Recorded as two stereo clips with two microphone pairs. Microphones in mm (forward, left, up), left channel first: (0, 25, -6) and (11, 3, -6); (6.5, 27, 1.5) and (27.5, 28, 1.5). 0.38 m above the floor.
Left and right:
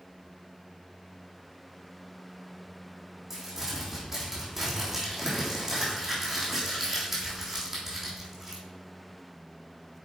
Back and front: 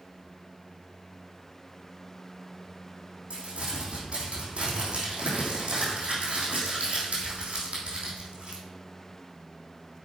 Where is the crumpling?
15° left, 3 m.